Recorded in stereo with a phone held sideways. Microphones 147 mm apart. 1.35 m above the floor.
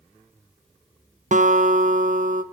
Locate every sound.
1.3 s a guitar: 60° right (ahead or behind), 0.7 m